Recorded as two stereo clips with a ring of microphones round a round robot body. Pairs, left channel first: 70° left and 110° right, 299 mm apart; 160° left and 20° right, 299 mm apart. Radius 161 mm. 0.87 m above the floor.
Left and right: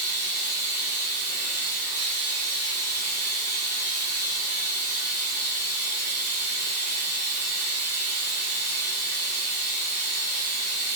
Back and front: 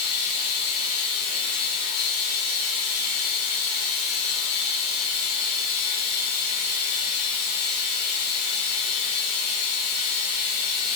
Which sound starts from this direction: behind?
Running water, at 0.0 s.